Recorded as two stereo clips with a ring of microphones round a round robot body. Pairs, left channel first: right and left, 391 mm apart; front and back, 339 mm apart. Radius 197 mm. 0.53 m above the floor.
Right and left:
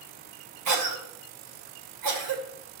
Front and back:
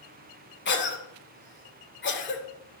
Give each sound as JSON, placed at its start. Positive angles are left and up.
{"t": 0.7, "sound": "a cough", "azimuth_deg": 55, "distance_m": 2.5}